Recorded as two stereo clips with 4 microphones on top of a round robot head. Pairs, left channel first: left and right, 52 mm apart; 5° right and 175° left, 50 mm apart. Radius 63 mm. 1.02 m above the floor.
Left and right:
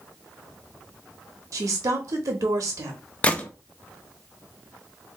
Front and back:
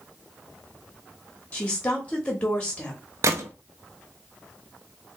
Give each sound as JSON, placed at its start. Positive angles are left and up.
{"t": 1.5, "sound": "a woman speaking", "azimuth_deg": -75, "distance_m": 1.2}
{"t": 3.2, "sound": "a gunshot", "azimuth_deg": 155, "distance_m": 0.6}